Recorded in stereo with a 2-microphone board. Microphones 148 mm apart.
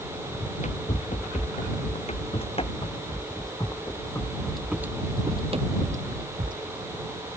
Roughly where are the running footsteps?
Left.